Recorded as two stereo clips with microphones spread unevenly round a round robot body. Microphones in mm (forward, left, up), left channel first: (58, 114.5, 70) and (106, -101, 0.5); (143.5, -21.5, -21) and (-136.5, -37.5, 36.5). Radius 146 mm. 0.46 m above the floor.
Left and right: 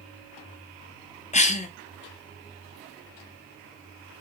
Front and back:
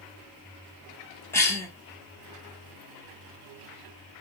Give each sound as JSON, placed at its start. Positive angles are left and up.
{"t": 1.3, "sound": "a cough", "azimuth_deg": 40, "distance_m": 1.3}